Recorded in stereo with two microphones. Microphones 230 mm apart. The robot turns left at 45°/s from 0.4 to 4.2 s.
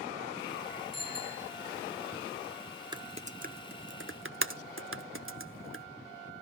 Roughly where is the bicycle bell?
Right.